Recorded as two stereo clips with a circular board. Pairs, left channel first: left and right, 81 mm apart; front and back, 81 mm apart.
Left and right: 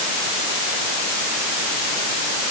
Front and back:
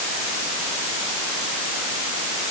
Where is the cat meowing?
No cat meowing in this recording.